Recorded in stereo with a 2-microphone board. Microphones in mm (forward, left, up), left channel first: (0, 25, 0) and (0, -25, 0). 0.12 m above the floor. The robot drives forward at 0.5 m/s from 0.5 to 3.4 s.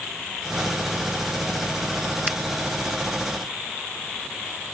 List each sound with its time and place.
2.3 s a finger snap: 10° right (ahead or behind)